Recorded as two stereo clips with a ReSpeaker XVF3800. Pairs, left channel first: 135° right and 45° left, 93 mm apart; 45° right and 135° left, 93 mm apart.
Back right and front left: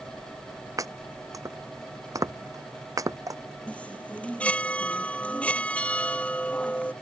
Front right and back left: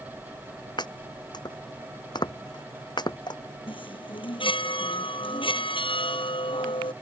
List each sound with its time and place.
0.8 s chopping: 5° right
3.7 s a chime: 60° right